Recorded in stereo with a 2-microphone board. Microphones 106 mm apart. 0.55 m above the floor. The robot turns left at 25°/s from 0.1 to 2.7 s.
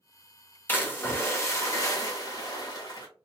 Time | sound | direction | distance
0.7 | a splash | 150° left | 0.9 m